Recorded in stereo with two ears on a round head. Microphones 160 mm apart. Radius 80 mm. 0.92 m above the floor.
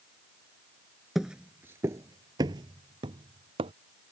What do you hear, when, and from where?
1.1 s footsteps: centre (ahead or behind); by 3.7 s 30° right (ahead or behind)